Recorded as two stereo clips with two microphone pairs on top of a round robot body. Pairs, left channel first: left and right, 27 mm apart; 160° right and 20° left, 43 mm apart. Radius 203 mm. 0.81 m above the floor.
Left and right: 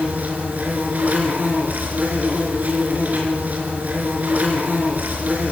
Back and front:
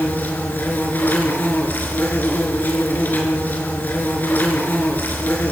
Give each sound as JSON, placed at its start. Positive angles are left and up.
{"t": 0.0, "sound": "an insect", "azimuth_deg": -110, "distance_m": 4.0}